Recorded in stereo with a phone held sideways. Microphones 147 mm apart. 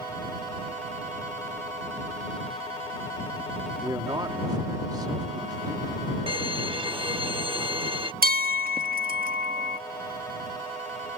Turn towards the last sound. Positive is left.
turn(degrees=-85)